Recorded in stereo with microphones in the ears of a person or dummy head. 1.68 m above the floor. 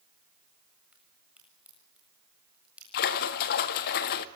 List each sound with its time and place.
0.9 s a crack: centre (ahead or behind), 7 m
2.9 s a splash: 50° left (ahead or behind), 1.6 m